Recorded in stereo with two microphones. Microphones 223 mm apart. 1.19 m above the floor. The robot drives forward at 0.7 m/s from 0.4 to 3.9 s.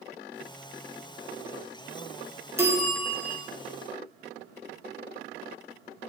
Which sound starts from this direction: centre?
A bell, at 2.6 s.